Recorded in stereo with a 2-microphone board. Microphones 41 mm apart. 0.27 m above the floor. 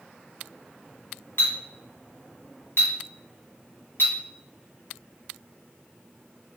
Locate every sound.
1.4 s a clink: 60° left (ahead or behind), 1.4 m